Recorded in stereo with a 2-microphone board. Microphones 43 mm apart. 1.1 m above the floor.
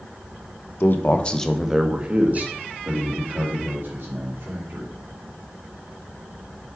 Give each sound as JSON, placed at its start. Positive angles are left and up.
{"t": 0.8, "sound": "a man speaking", "side_deg": 55, "distance_m": 1.1}